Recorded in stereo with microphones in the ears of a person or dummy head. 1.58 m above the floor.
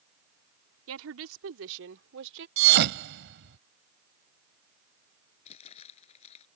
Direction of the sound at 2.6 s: 55° right (ahead or behind).